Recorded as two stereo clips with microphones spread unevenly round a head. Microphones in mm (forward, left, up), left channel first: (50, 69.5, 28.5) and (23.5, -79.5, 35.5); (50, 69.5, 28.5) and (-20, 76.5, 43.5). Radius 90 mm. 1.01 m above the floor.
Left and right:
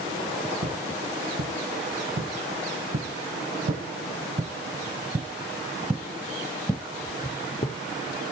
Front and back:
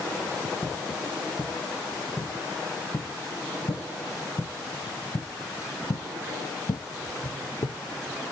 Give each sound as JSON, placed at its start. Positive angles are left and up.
{"t": 0.6, "sound": "footsteps", "azimuth_deg": -90, "distance_m": 3.5}